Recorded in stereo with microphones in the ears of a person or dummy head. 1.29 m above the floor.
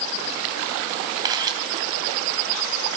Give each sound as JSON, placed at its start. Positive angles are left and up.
{"t": 1.2, "sound": "a camera shutter", "side_deg": -20, "distance_m": 2.5}